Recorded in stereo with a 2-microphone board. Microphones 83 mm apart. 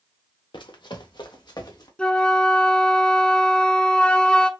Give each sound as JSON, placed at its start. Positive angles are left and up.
{"t": 0.5, "sound": "running footsteps", "side_deg": 70, "distance_m": 0.9}
{"t": 2.0, "sound": "a flute", "side_deg": 15, "distance_m": 0.5}